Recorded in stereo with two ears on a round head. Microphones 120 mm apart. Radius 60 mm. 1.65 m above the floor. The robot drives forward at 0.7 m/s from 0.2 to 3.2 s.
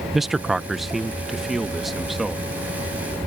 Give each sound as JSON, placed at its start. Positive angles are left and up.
{"t": 0.1, "sound": "a man speaking", "side_deg": 0}